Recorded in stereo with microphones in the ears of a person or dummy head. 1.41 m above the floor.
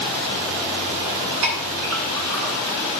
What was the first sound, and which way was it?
A clink, 80° right.